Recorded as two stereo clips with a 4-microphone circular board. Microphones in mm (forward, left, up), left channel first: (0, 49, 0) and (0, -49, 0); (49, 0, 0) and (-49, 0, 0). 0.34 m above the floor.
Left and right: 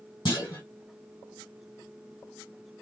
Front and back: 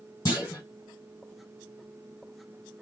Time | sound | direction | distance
0.2 | a clunk | 50° left | 2.5 m